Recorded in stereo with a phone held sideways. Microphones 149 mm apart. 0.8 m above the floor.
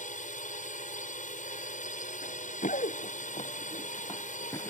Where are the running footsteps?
65° left (ahead or behind); by 4.7 s 20° left (ahead or behind).